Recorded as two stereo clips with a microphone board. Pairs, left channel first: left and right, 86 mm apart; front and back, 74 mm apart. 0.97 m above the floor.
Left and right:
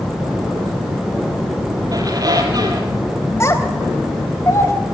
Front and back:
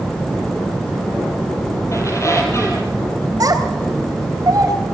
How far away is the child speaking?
About 3.5 m.